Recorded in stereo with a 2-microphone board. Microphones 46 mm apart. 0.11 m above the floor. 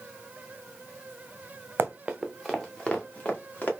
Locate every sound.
1.8 s running footsteps: 50° right (ahead or behind), 0.6 m; by 3.7 s 35° left (ahead or behind), 1.7 m